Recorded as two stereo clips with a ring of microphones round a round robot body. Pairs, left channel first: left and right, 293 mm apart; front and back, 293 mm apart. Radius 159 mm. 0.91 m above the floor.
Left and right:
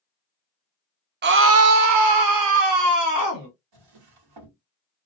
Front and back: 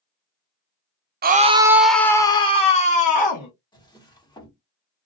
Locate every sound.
1.2 s a scream: 130° right, 0.6 m; by 3.5 s 60° right, 1.5 m
3.7 s a drawer: 75° right, 1.3 m